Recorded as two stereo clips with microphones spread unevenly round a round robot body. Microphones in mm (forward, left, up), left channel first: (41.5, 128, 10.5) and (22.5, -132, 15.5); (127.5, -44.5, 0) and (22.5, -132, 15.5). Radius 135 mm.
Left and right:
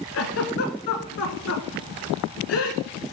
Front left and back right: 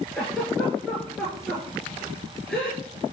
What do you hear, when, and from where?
0.1 s a giggle: 130° left, 1.0 m